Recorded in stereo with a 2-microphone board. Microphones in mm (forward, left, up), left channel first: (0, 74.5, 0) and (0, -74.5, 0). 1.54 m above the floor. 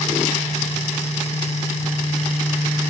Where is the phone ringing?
I don't hear a phone ringing.